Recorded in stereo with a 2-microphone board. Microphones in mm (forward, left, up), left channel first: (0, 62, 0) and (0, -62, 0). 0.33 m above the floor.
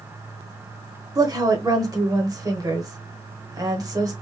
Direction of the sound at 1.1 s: 30° right (ahead or behind).